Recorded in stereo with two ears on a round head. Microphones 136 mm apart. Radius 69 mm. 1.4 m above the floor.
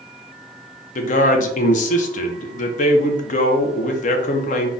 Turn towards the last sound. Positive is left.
turn(degrees=55)  # may be behind; listen again after turning